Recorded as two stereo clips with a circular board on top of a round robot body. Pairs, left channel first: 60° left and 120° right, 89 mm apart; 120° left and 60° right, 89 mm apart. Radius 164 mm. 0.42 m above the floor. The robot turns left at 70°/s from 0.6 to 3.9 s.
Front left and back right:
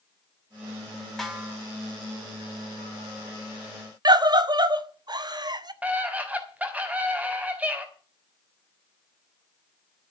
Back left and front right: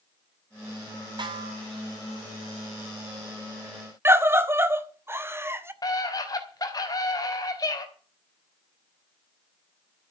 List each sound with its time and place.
1.2 s a snare drum: 25° right, 4.5 m; by 1.6 s 55° right, 4.5 m
4.0 s a scream: 115° right, 1.9 m
5.8 s a scream: 165° left, 4 m